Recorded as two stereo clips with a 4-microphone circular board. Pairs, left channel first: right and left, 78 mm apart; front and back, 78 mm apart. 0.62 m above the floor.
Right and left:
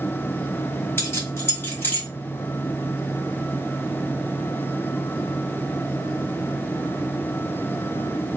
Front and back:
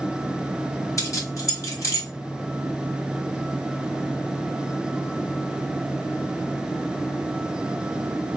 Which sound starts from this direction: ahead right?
Keys jangling, at 1.0 s.